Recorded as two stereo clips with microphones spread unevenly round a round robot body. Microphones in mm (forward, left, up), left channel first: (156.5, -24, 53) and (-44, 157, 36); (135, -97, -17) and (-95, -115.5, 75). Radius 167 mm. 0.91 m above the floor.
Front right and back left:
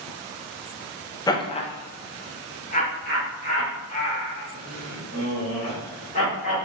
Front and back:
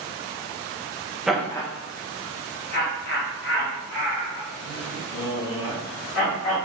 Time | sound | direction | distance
1.3 | laughter | 20° left | 0.6 m